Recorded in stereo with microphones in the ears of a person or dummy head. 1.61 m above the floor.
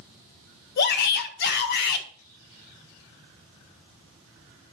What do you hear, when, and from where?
0.8 s a shout: 60° left (ahead or behind), 1.6 m